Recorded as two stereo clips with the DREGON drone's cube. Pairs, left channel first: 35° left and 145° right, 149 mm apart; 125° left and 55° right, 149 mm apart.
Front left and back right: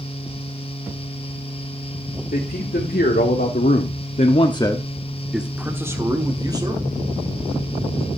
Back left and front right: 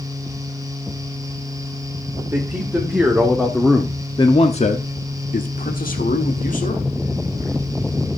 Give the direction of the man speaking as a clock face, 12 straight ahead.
11 o'clock.